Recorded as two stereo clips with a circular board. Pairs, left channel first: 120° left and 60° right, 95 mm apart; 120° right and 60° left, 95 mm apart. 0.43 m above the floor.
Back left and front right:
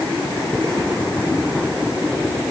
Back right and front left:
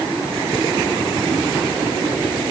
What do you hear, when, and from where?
Only background noise.